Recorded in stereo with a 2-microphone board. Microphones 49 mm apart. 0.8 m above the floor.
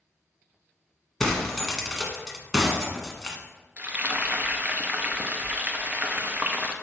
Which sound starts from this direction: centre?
Breaking glass, at 1.2 s.